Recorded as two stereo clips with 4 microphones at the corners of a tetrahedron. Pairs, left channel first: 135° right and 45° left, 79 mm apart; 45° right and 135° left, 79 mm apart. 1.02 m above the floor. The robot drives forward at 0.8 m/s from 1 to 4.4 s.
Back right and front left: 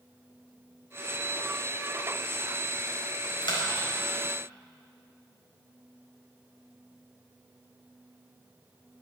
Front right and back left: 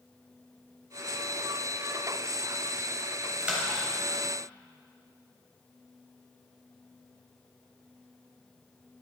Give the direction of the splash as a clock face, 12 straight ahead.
5 o'clock.